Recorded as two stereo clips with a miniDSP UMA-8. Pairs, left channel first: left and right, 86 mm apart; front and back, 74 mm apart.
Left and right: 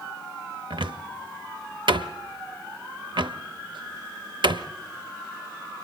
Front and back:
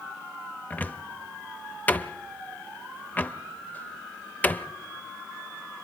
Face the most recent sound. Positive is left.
turn(degrees=-65)